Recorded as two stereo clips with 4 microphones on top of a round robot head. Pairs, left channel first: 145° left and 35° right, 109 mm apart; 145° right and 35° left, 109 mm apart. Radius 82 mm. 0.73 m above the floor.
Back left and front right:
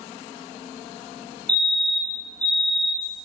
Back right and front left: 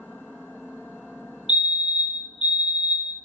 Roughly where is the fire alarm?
Ahead right.